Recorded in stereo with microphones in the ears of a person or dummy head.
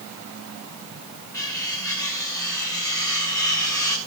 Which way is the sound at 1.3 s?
15° left (ahead or behind).